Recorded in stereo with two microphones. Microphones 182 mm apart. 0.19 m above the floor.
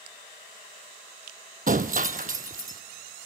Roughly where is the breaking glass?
Right.